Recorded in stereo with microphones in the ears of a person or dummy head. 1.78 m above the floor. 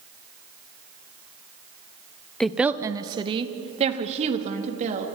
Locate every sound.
2.4 s a woman speaking: 5° left (ahead or behind), 1.0 m; by 5.1 s 40° right (ahead or behind), 3.5 m